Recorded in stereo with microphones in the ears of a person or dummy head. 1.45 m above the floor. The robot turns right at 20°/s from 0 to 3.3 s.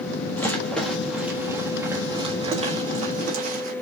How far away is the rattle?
About 1.4 m.